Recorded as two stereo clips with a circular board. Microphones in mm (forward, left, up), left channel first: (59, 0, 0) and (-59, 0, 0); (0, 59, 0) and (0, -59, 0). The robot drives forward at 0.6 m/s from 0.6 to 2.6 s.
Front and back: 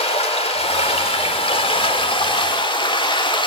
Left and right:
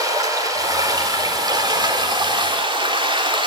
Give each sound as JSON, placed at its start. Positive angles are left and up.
{"t": 0.0, "sound": "running water", "azimuth_deg": -30, "distance_m": 4.0}